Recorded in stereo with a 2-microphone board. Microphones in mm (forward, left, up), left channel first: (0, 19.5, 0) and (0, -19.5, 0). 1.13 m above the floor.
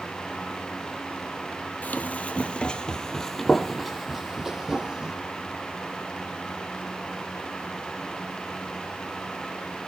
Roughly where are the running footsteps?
Left.